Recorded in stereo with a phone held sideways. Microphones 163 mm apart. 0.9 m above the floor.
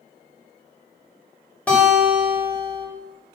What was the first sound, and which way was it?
A guitar, 10° left (ahead or behind).